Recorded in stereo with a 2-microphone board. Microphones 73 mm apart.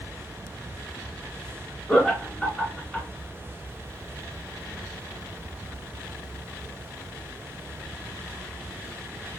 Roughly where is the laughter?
Centre.